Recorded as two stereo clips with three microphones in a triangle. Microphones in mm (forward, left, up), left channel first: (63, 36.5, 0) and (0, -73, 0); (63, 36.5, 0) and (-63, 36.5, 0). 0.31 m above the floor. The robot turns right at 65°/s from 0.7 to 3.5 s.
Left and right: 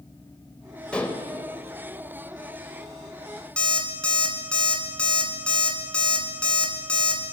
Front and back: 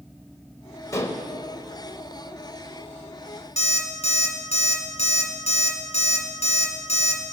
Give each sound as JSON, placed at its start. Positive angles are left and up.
{"t": 0.9, "sound": "dishes clattering", "azimuth_deg": -10, "distance_m": 0.9}
{"t": 3.6, "sound": "an alarm clock", "azimuth_deg": -20, "distance_m": 1.7}